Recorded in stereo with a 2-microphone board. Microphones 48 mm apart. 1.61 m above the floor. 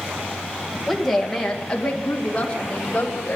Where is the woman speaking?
Centre (ahead or behind), 2 m; by 3.4 s 30° left (ahead or behind), 3 m.